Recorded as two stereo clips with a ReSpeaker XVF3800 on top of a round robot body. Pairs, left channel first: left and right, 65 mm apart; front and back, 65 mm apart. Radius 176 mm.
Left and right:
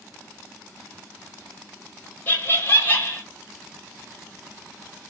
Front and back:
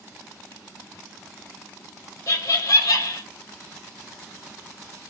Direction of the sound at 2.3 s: 30° left.